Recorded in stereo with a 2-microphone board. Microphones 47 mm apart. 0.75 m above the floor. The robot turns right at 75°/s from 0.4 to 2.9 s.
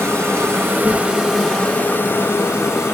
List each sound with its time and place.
0.0 s an insect: 70° right, 3 m; by 3.0 s 115° left, 3 m